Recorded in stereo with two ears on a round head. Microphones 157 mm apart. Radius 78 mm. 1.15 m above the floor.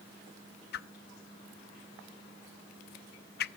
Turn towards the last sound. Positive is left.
turn(degrees=55)  # may be behind; listen again after turning